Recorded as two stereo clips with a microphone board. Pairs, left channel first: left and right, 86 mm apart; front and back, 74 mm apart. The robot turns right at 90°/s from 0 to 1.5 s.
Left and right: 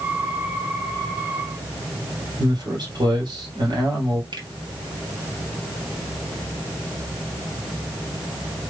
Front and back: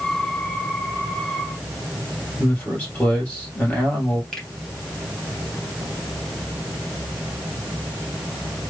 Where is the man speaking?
65° right, 2.5 m.